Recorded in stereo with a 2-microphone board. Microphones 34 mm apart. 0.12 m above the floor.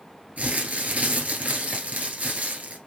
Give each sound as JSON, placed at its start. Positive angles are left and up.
{"t": 0.4, "sound": "crumpling", "side_deg": -45, "distance_m": 1.4}